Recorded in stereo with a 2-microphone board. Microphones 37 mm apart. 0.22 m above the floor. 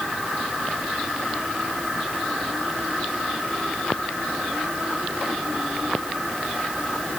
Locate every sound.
Only background noise.